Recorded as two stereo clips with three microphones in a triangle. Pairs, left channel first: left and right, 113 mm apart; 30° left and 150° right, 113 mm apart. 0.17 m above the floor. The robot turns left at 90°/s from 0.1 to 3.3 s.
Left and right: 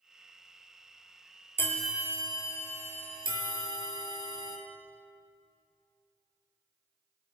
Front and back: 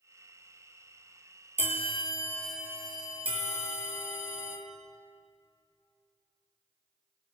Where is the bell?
25° left, 1.5 m; by 4.6 s 130° right, 1.5 m.